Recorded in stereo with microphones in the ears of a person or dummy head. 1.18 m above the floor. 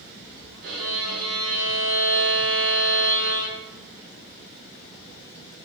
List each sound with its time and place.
0.6 s a violin: 55° right (ahead or behind), 1.1 m